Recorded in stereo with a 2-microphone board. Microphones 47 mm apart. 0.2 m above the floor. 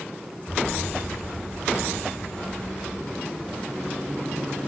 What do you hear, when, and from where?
0.5 s an explosion: 30° left (ahead or behind), 4.5 m